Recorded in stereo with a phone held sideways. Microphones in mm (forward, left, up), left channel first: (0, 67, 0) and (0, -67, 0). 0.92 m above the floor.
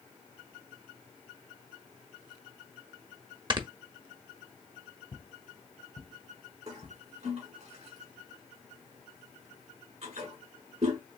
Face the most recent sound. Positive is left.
turn(degrees=-55)  # may be behind; listen again after turning